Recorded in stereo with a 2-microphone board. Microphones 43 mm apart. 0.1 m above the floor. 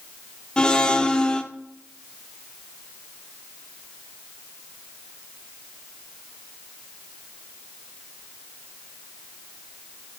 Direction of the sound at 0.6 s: 20° left (ahead or behind).